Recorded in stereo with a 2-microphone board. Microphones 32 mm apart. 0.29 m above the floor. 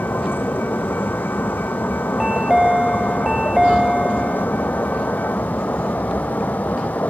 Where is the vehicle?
80° left; by 7.1 s 60° left (ahead or behind).